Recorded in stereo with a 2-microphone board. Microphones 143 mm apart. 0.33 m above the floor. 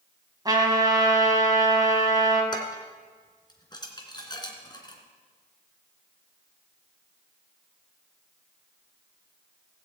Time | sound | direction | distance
0.5 | a trumpet | 25° right (ahead or behind) | 2.5 m
2.5 | dishes clattering | 30° left (ahead or behind) | 2.5 m